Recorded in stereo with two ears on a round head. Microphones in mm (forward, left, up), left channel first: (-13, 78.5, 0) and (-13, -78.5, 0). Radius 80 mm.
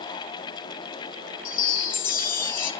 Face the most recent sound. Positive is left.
turn(degrees=50)  # may be behind; listen again after turning